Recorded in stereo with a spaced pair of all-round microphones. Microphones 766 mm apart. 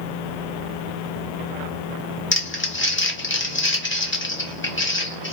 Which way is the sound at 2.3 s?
15° left (ahead or behind).